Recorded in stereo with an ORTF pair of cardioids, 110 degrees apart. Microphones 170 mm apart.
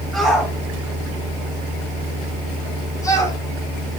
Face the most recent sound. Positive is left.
turn(degrees=20)